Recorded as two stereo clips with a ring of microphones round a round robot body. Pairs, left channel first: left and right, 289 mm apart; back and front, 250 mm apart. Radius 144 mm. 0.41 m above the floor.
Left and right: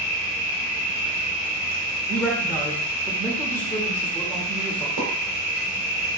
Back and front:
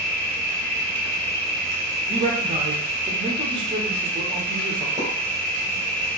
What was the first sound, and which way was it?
An insect, 95° left.